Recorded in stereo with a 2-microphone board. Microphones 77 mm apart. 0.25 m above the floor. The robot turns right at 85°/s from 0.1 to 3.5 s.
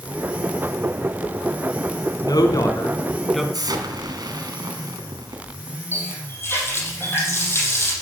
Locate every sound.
2.2 s a woman speaking: 80° left, 2.5 m; by 3.4 s 175° right, 2.5 m
3.5 s an explosion: 60° right (ahead or behind), 2.5 m
5.9 s a running tap: 30° left (ahead or behind), 6.5 m